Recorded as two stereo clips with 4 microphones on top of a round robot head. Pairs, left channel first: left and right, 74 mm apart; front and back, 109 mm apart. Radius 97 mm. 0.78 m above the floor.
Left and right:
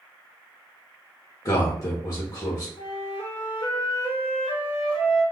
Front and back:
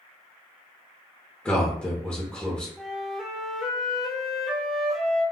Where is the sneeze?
No sneeze in this recording.